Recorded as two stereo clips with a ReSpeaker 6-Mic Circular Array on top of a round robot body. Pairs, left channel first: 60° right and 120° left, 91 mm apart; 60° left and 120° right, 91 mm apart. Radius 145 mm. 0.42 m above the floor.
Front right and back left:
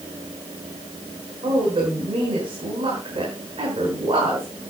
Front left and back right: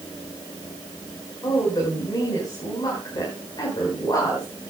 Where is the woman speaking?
100° left, 4.5 m.